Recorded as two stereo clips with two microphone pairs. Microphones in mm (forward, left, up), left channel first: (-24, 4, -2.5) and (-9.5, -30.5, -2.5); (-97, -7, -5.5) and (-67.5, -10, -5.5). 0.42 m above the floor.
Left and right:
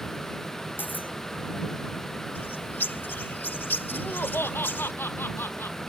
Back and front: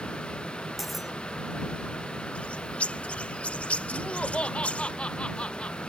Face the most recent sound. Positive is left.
turn(degrees=120)